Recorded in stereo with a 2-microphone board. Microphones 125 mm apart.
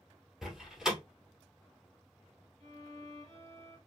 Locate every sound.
0.4 s a door slam: 5° right (ahead or behind), 1.3 m
2.6 s a violin: 45° right (ahead or behind), 1.9 m